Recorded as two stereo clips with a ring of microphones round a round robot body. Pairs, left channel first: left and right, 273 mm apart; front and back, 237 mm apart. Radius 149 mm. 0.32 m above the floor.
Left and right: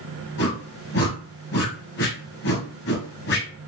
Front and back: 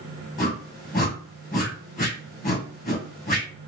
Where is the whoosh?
50° left, 2 m.